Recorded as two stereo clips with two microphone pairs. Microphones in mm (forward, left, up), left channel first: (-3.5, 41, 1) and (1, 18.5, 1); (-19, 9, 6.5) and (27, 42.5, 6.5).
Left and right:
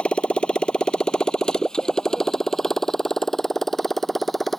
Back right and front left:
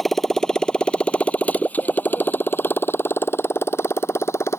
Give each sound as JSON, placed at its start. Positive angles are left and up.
{"t": 0.0, "sound": "a motorcycle", "azimuth_deg": 130}